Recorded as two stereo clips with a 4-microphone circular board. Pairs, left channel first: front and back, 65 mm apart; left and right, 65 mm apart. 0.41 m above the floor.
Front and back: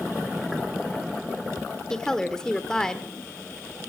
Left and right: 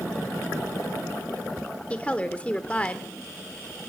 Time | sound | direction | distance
1.9 | a woman speaking | 60° left | 0.9 m